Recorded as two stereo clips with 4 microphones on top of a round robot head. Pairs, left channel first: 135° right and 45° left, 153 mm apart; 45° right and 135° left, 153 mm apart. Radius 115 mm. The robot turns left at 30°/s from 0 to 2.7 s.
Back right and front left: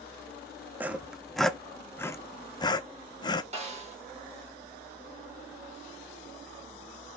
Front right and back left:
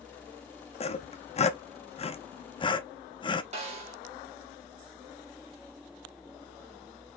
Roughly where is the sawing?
Ahead right.